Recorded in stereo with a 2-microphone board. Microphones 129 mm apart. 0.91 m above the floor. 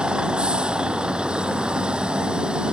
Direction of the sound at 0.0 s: 5° right (ahead or behind).